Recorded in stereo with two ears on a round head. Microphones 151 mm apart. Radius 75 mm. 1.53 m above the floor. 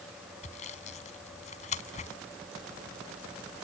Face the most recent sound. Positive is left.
turn(degrees=45)  # may be behind; listen again after turning